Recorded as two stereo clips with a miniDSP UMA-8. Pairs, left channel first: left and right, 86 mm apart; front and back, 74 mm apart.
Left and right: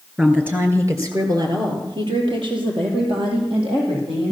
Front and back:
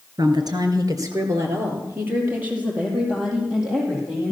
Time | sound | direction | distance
0.2 | a woman speaking | 165° right | 3 m